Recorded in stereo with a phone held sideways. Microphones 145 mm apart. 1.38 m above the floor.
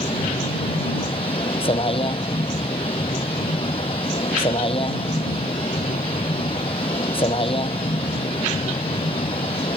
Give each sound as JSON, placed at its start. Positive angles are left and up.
{"t": 0.0, "sound": "a vehicle", "side_deg": 40}